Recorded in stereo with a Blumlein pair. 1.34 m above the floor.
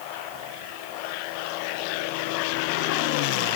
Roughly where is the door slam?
No door slam in this recording.